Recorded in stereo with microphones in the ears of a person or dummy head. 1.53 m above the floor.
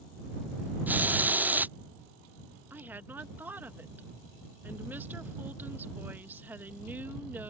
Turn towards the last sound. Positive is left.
turn(degrees=0)  # may be behind; listen again after turning